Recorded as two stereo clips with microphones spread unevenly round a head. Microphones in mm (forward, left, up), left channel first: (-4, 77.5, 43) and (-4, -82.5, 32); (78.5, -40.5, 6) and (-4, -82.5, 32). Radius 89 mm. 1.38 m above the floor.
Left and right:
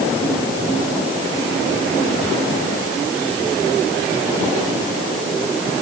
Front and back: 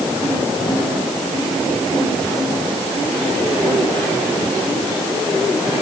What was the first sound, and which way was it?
Only background noise.